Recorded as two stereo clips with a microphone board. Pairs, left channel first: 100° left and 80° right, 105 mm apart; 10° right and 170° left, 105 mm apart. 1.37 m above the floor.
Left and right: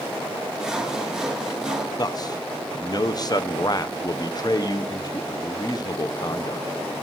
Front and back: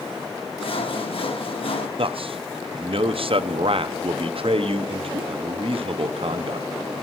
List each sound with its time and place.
0.6 s sawing: 5° left, 1.0 m
2.0 s a man speaking: 145° left, 0.5 m